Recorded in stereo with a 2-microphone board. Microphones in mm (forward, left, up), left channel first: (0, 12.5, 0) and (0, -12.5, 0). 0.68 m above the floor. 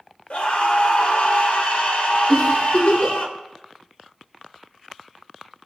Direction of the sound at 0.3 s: 60° left (ahead or behind).